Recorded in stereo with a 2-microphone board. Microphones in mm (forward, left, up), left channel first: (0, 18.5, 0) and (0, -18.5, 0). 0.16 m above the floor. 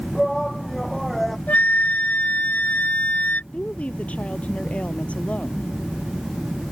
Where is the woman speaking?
40° left (ahead or behind).